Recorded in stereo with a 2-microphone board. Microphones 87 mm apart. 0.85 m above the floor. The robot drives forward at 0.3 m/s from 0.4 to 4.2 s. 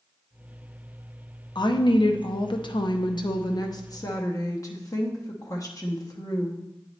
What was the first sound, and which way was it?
A woman speaking, 55° left (ahead or behind).